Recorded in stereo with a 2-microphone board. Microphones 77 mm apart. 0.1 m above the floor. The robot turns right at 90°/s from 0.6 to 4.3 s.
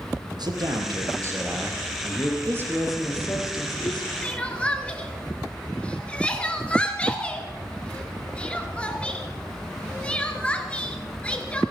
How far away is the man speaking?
About 2.5 m.